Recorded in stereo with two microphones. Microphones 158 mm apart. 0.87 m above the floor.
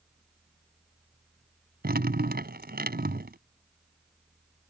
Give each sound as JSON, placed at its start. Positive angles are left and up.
{"t": 1.8, "sound": "dripping", "side_deg": -75}